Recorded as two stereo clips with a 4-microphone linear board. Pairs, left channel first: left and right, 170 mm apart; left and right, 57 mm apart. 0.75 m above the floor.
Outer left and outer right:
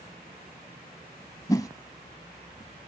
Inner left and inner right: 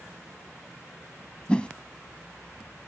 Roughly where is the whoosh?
Left.